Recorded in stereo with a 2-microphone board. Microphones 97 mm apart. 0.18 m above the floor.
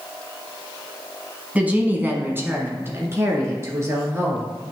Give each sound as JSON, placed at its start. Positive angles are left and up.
{"t": 1.6, "sound": "a woman speaking", "side_deg": -15, "distance_m": 1.1}